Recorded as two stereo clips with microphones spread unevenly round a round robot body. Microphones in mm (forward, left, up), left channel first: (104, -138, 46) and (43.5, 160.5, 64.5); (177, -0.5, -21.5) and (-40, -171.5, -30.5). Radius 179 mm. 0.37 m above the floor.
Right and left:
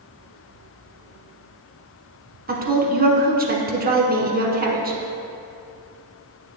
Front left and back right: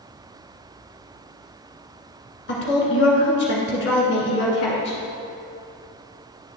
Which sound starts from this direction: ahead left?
A woman speaking, at 2.5 s.